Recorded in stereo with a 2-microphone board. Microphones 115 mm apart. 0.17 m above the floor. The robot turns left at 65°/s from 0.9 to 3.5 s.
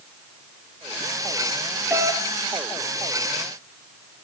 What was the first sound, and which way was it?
A doorbell, 20° right (ahead or behind).